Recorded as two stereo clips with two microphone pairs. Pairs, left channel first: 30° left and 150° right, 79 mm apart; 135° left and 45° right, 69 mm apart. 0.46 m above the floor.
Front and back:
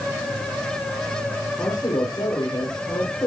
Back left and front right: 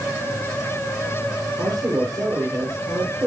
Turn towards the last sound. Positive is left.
turn(degrees=-5)